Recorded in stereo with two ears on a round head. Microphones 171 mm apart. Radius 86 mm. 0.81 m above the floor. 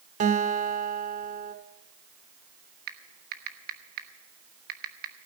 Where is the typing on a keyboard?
50° right (ahead or behind), 1.2 m.